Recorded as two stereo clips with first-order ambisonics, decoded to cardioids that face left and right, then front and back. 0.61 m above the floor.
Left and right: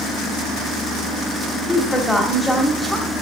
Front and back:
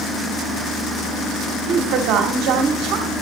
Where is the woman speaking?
Straight behind, 1.5 m.